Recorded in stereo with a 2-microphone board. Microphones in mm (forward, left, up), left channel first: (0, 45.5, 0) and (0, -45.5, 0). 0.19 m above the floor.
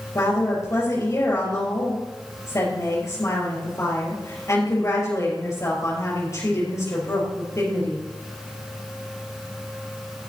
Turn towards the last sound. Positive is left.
turn(degrees=35)  # may be behind; listen again after turning